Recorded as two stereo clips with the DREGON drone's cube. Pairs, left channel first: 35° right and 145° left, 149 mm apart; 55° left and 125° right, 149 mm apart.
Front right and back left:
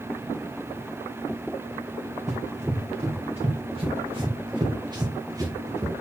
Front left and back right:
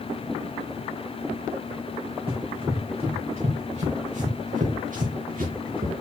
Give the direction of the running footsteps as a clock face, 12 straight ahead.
6 o'clock.